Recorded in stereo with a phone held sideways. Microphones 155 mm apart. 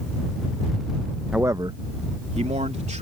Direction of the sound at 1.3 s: 5° right (ahead or behind).